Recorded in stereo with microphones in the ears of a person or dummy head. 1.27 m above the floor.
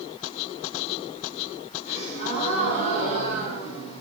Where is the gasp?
30° left (ahead or behind), 3 m.